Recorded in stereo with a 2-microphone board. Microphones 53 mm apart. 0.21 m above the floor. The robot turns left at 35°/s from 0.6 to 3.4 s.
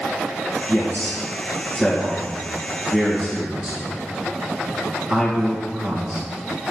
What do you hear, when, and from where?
0.7 s a man speaking: 50° left (ahead or behind), 2.5 m; by 6.2 s 30° right (ahead or behind), 2.5 m